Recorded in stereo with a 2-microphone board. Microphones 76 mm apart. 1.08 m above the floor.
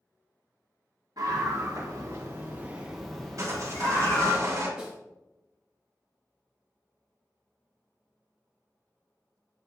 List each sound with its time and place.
1.2 s a scream: 65° right (ahead or behind), 1.8 m; by 4.4 s 35° left (ahead or behind), 1.9 m
3.4 s sawing: 50° right (ahead or behind), 3 m
4.8 s a snare drum: 10° right (ahead or behind), 2 m